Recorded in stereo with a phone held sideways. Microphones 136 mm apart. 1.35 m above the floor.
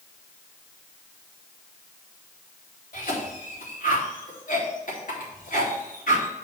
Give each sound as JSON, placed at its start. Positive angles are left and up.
{"t": 2.9, "sound": "a cough", "side_deg": 85, "distance_m": 3.5}